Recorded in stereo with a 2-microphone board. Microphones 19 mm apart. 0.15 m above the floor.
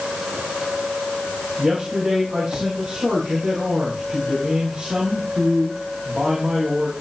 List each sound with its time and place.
1.6 s a man speaking: 35° right (ahead or behind), 6.5 m